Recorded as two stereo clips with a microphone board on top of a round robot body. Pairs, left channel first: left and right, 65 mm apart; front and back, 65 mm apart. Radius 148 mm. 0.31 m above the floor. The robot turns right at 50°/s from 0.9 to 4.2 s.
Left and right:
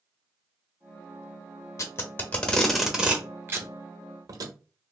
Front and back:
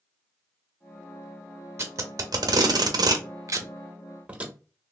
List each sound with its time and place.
1.8 s tape being pulled: 130° left, 0.7 m; by 4.5 s 110° right, 0.7 m